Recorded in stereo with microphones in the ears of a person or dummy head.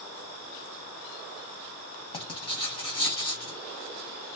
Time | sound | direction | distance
2.1 | writing | 25° left (ahead or behind) | 2.5 m